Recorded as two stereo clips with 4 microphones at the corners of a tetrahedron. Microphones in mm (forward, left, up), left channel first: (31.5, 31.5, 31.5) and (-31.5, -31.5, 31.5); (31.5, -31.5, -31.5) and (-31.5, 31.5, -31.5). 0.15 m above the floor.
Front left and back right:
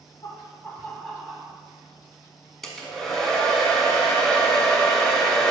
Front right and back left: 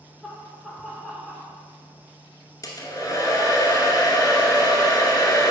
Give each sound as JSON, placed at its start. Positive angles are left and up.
{"t": 0.2, "sound": "laughter", "azimuth_deg": 40, "distance_m": 1.2}
{"t": 2.6, "sound": "a hair dryer", "azimuth_deg": -40, "distance_m": 1.0}